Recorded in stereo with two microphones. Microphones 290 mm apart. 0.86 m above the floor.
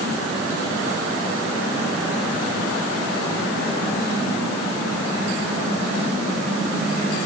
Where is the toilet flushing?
No toilet flushing in this recording.